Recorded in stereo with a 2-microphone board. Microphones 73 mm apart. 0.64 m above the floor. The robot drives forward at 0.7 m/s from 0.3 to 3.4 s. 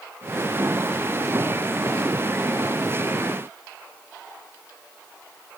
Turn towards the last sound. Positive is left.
No sound to turn to.